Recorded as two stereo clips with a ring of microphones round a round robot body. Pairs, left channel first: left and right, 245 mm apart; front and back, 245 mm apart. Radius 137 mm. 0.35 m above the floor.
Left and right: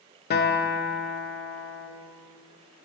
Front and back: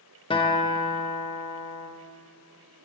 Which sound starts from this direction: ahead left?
A guitar, at 0.3 s.